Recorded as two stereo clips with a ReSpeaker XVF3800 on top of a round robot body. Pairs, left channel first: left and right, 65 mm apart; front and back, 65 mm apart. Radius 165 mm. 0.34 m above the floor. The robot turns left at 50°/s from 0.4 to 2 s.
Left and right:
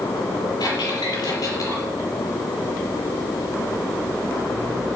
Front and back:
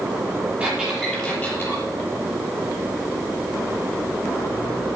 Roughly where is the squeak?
Behind left.